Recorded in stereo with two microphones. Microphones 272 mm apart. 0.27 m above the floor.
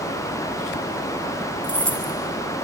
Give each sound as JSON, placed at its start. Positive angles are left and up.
{"t": 1.6, "sound": "keys jangling", "side_deg": -25, "distance_m": 4.5}